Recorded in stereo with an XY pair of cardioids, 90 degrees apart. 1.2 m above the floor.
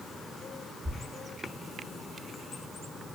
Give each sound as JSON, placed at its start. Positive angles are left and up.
{"t": 0.8, "sound": "a thud", "azimuth_deg": -45, "distance_m": 1.6}